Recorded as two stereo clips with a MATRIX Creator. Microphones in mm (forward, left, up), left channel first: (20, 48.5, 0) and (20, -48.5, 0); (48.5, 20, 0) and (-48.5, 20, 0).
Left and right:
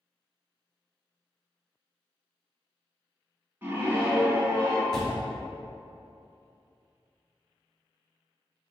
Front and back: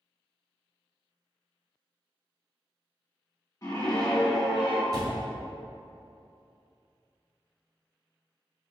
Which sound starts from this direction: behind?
A door slam, at 4.9 s.